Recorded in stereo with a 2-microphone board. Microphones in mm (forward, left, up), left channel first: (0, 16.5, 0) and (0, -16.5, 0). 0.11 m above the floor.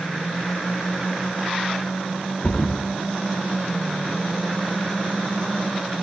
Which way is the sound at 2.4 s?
45° left (ahead or behind).